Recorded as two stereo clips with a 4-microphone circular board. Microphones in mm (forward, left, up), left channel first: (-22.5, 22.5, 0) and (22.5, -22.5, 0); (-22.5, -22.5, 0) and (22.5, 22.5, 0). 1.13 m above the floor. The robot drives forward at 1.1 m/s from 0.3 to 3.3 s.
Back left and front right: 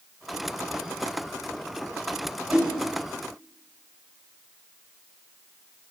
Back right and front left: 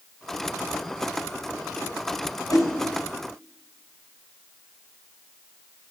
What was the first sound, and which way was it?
A whoosh, 115° right.